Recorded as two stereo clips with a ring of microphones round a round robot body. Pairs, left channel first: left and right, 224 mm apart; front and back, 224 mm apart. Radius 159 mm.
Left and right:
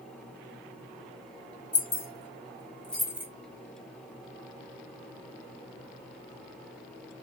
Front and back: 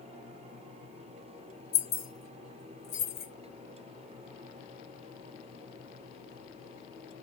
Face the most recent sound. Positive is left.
turn(degrees=-30)